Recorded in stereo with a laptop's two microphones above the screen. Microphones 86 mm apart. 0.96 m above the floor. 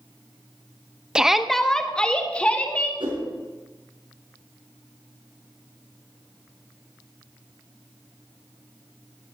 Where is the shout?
10° right (ahead or behind), 0.7 m; by 2.9 s 15° left (ahead or behind), 1.9 m.